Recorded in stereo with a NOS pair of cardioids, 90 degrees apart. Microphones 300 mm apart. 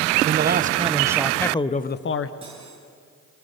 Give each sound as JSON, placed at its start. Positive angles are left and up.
{"t": 0.2, "sound": "a man speaking", "azimuth_deg": -35, "distance_m": 1.1}
{"t": 2.4, "sound": "cutlery clinking", "azimuth_deg": -15, "distance_m": 9.0}